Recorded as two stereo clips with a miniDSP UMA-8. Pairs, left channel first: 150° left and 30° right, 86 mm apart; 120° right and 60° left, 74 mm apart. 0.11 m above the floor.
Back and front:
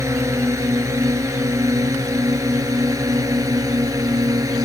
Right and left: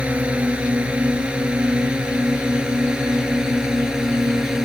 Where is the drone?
5° right; by 4.7 s 20° right.